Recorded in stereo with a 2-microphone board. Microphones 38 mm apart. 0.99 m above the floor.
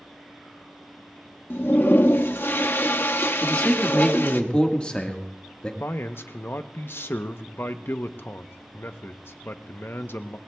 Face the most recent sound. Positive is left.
turn(degrees=75)  # may be behind; listen again after turning